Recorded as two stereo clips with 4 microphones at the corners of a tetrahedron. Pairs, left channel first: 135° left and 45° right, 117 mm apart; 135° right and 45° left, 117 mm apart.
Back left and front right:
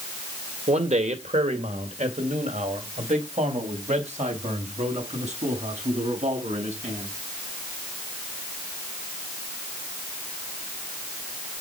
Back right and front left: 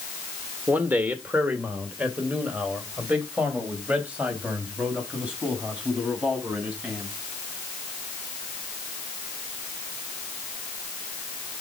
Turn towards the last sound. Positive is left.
turn(degrees=-35)